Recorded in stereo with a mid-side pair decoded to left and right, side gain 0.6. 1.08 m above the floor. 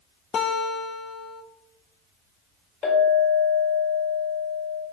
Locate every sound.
0.3 s a guitar: 40° left, 0.5 m
2.8 s a clink: 50° left, 2 m